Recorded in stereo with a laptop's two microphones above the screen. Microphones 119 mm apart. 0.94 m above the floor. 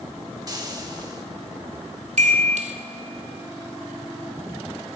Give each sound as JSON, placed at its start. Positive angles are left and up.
{"t": 0.5, "sound": "frying", "side_deg": -30, "distance_m": 2.0}
{"t": 2.2, "sound": "a chime", "side_deg": -70, "distance_m": 2.0}